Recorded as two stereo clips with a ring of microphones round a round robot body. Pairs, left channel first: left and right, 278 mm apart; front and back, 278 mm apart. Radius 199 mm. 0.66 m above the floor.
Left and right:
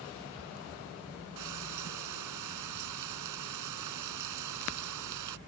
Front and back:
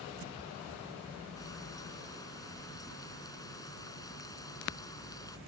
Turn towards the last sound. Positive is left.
turn(degrees=-80)